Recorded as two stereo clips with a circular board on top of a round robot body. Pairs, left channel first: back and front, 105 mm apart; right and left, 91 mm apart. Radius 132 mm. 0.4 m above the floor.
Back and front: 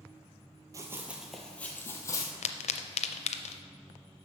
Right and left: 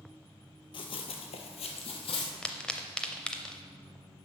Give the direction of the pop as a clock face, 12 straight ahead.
6 o'clock.